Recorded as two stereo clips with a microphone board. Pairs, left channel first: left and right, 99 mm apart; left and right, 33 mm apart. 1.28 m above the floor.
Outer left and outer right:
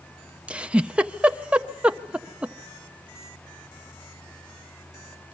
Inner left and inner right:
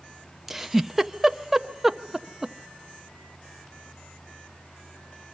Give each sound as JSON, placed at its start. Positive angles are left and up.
{"t": 0.5, "sound": "a giggle", "side_deg": -10, "distance_m": 0.6}